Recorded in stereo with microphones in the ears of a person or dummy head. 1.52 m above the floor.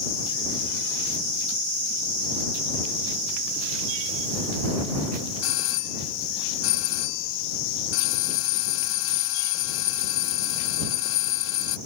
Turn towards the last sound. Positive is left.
turn(degrees=80)